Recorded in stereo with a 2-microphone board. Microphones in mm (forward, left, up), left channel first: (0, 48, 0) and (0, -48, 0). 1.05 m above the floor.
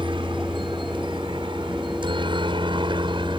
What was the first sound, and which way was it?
A helicopter, 60° right (ahead or behind).